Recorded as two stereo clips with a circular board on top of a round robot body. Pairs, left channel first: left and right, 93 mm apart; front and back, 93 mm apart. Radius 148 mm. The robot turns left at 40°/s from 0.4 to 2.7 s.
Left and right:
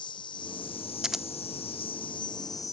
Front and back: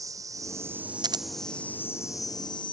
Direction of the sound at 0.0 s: 125° left.